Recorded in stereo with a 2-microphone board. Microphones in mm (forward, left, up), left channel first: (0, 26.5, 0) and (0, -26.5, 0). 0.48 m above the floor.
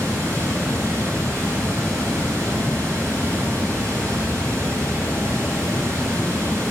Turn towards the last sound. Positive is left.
turn(degrees=-70)  # may be behind; listen again after turning